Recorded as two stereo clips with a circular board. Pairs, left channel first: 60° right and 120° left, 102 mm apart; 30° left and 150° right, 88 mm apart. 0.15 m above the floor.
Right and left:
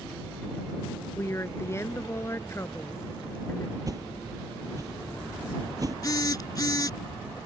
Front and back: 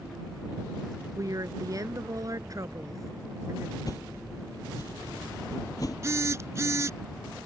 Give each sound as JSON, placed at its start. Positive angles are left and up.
{"t": 1.2, "sound": "a woman speaking", "azimuth_deg": -115}
{"t": 3.9, "sound": "a whoosh", "azimuth_deg": 70}
{"t": 6.0, "sound": "a phone buzzing", "azimuth_deg": -105}